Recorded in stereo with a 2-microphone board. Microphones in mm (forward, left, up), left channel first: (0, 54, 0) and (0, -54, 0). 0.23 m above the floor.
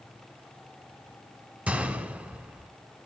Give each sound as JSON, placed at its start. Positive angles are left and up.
{"t": 1.7, "sound": "a gunshot", "side_deg": -15, "distance_m": 1.2}